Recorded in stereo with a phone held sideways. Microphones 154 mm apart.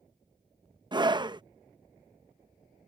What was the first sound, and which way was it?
A scream, 30° right (ahead or behind).